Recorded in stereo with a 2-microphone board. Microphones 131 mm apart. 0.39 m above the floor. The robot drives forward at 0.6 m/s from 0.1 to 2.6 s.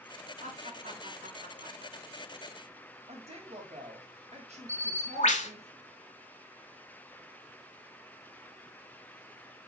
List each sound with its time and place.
0.4 s laughter: 65° right (ahead or behind), 3.5 m; by 2.2 s 75° right (ahead or behind), 3.5 m
3.1 s a woman speaking: 60° right (ahead or behind), 3 m
4.7 s a bird: 70° left (ahead or behind), 1.2 m